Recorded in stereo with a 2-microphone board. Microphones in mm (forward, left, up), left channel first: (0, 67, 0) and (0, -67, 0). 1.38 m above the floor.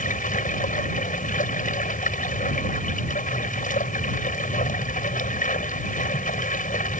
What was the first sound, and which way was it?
Running water, 85° left.